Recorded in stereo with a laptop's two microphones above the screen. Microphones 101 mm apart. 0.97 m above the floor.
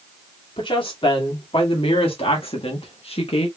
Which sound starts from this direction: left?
A woman speaking, at 0.6 s.